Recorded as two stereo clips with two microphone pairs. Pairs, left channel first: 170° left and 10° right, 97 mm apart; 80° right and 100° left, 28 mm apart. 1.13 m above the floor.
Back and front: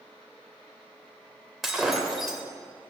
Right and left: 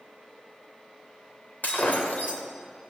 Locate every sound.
1.6 s breaking glass: 100° right, 2 m